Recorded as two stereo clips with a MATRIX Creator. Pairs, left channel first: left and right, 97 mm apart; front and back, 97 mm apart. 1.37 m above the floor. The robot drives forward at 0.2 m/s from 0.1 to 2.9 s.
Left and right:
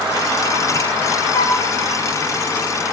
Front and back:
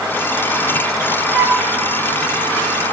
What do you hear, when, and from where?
1.3 s a flute: 115° left, 1.0 m; by 1.6 s 120° left, 1.1 m